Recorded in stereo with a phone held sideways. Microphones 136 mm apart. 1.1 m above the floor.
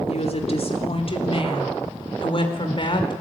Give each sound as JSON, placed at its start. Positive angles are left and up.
{"t": 0.1, "sound": "a woman speaking", "side_deg": 55, "distance_m": 3.0}